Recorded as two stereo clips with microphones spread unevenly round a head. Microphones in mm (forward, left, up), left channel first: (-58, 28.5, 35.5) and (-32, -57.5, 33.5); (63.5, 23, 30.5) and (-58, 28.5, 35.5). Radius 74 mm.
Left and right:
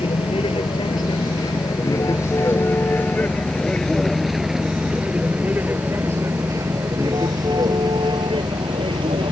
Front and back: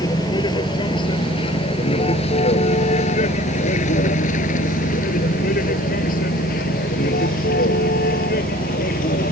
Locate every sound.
0.0 s a vehicle: 55° left; by 9.3 s 25° right